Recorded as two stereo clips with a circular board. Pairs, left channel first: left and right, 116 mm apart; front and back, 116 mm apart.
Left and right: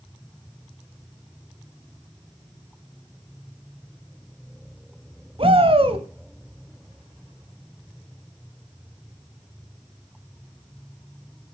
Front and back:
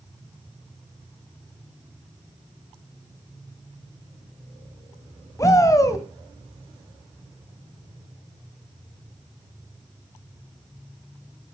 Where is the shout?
60° right, 2 m.